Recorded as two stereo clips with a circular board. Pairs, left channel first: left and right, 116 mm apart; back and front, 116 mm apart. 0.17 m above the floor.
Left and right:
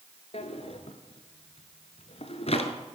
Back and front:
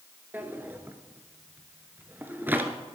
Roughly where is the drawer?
Left.